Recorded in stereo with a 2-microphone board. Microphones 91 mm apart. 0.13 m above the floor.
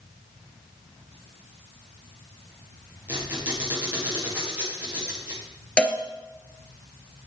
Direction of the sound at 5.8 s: 10° left (ahead or behind).